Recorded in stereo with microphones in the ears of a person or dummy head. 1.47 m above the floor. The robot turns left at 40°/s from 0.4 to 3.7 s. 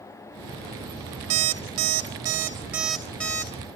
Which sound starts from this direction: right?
An alarm clock, at 1.3 s.